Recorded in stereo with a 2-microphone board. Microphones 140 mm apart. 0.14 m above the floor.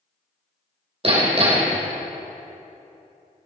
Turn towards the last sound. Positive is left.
turn(degrees=-40)  # may be behind; listen again after turning